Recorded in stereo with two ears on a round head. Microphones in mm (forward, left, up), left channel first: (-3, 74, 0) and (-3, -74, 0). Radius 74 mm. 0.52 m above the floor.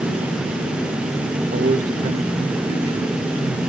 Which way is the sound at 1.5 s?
45° right (ahead or behind).